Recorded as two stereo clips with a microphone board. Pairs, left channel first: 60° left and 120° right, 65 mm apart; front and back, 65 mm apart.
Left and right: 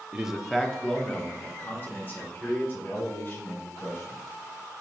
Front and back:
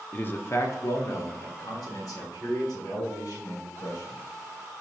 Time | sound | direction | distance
0.1 | a man speaking | 55° right | 0.8 m